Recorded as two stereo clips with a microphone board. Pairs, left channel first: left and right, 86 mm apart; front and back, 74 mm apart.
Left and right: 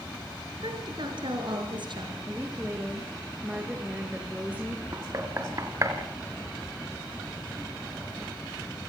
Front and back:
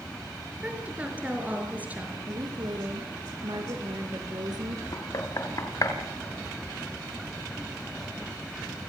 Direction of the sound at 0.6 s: 110° right.